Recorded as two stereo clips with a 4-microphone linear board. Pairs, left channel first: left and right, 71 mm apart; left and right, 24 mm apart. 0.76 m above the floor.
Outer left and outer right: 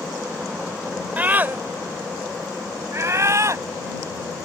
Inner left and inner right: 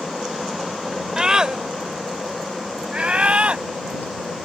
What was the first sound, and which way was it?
A scream, 25° right (ahead or behind).